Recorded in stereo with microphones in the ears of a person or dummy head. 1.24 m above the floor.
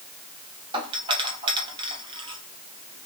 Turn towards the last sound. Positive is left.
turn(degrees=-20)  # may be behind; listen again after turning